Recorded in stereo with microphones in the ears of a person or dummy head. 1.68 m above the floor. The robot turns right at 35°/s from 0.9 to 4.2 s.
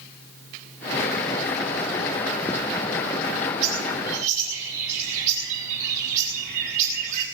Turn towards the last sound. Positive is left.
turn(degrees=-45)  # may be behind; listen again after turning